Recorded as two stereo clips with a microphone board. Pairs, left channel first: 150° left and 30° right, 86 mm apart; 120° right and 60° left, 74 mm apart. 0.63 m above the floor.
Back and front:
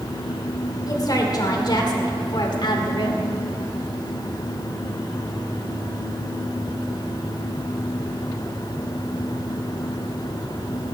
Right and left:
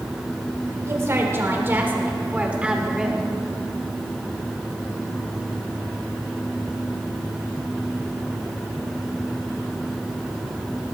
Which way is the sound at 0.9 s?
110° left.